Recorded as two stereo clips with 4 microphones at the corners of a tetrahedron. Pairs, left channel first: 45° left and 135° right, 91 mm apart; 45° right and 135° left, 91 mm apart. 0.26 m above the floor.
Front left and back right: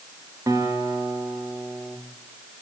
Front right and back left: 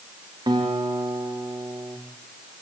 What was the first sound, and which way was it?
A guitar, 170° left.